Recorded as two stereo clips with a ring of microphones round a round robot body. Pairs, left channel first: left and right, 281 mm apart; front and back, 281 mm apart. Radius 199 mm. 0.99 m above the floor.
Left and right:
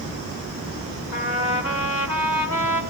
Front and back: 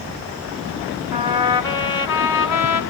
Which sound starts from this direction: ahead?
A trumpet, at 1.1 s.